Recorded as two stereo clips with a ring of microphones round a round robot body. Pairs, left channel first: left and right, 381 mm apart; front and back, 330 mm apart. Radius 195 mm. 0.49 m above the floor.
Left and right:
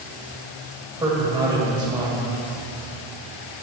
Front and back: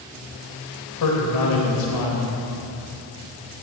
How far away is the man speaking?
About 2.5 m.